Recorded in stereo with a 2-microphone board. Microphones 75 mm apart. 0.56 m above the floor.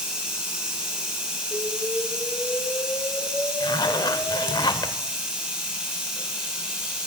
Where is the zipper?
70° left (ahead or behind), 0.6 m.